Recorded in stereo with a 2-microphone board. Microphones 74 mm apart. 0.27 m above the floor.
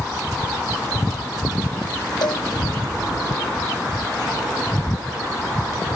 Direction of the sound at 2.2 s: 75° left (ahead or behind).